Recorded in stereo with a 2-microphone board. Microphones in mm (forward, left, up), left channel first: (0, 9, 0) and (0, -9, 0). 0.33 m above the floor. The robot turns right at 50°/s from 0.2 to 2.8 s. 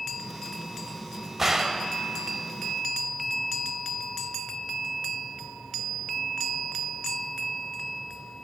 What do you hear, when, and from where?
1.4 s a gunshot: 15° right (ahead or behind), 0.5 m; by 1.9 s 35° right (ahead or behind), 0.5 m